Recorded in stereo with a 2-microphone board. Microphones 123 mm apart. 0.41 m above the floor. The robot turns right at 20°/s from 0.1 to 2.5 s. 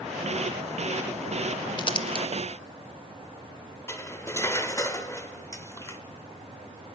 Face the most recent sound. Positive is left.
turn(degrees=20)  # may be behind; listen again after turning